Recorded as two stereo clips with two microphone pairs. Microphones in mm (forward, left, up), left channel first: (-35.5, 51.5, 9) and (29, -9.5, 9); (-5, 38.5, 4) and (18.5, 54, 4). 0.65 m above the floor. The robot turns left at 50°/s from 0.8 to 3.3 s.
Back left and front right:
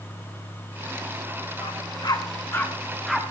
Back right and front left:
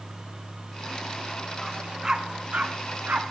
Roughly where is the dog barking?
Behind left.